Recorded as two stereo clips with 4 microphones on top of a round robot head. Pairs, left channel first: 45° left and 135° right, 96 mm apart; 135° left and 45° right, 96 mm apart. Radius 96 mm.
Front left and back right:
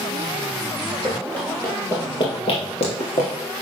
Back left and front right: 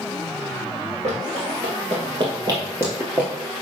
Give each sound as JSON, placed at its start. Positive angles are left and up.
{"t": 1.0, "sound": "running footsteps", "azimuth_deg": -40, "distance_m": 1.9}